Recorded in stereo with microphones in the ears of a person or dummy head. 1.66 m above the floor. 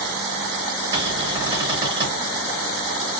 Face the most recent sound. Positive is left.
turn(degrees=-30)  # may be behind; listen again after turning